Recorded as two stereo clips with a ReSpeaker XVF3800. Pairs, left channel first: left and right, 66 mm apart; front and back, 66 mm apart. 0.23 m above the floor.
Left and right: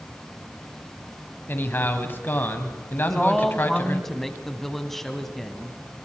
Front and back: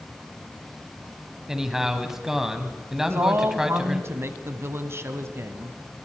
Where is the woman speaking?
175° left, 1.5 m.